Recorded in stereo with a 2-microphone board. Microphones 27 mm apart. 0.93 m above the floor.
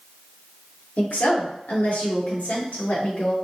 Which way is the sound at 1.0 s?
80° left.